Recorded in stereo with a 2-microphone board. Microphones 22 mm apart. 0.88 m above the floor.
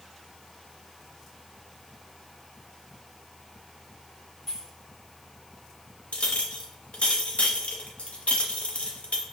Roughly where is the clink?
Left.